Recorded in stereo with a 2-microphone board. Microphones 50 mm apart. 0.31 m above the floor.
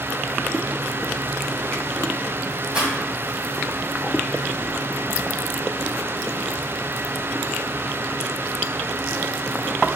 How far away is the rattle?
About 1.7 m.